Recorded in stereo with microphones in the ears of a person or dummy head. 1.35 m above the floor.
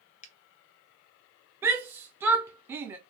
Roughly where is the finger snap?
Left.